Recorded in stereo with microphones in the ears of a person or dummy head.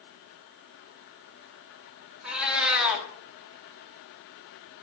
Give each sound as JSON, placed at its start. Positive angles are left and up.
{"t": 2.2, "sound": "a cat meowing", "side_deg": -5, "distance_m": 1.7}